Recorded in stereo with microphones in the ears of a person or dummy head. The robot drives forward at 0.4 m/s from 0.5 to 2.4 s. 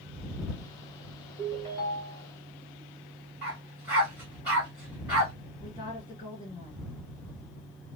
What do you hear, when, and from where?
1.4 s a ringtone: 15° left (ahead or behind), 2 m
3.4 s a dog barking: 5° right (ahead or behind), 1.3 m
5.6 s a woman speaking: 30° left (ahead or behind), 2.5 m